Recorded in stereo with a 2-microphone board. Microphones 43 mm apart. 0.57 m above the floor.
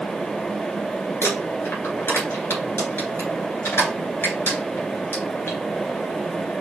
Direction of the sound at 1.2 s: 80° left.